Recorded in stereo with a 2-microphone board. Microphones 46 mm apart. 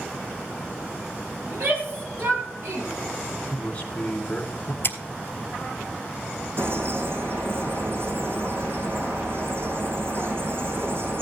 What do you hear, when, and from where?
1.5 s a shout: 50° right (ahead or behind), 4.5 m; by 2.9 s 60° right (ahead or behind), 4.5 m
3.5 s a man speaking: 25° left (ahead or behind), 2 m
4.8 s scissors: 50° left (ahead or behind), 1.1 m
6.6 s a bird: 55° right (ahead or behind), 4.5 m